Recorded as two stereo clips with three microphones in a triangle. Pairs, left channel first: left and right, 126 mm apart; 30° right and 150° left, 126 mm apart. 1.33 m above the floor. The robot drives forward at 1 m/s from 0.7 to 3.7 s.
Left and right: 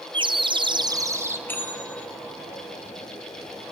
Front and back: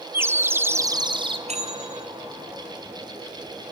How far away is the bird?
About 0.6 m.